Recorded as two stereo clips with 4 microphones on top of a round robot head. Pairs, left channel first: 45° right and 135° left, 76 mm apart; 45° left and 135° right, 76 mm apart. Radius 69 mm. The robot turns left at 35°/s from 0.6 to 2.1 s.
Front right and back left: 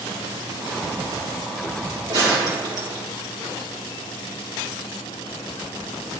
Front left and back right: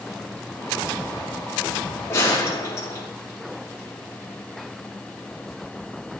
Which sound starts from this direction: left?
A gunshot, at 2.1 s.